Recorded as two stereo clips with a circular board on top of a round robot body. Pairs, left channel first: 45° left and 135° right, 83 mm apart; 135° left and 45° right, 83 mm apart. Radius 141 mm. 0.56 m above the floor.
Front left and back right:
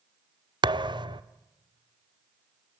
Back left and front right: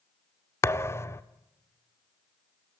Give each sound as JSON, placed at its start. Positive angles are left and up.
{"t": 0.6, "sound": "a thud", "azimuth_deg": -165, "distance_m": 0.7}